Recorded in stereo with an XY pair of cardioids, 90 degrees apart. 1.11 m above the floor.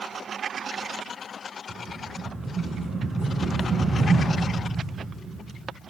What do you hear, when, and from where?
1.7 s a rattle: 40° right, 4 m